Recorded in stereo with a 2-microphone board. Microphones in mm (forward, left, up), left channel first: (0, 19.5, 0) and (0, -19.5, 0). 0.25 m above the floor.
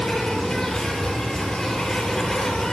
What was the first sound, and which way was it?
An insect, 15° left (ahead or behind).